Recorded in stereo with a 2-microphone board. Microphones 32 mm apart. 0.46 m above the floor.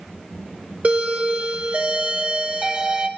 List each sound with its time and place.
0.8 s a doorbell: 45° right (ahead or behind), 2 m